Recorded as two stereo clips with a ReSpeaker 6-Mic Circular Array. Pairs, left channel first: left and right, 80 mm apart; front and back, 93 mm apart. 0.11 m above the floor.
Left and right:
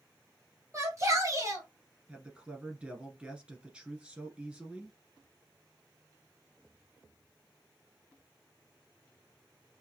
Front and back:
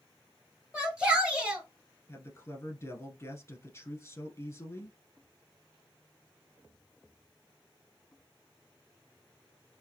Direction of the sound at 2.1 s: 25° right.